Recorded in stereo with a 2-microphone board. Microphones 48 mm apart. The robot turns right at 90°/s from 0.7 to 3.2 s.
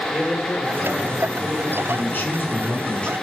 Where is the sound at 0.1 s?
175° left, 2.0 m; by 1.8 s 90° right, 2.0 m.